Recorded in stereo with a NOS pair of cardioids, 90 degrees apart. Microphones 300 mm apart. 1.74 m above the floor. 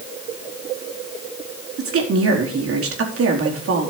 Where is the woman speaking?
50° right, 4 m.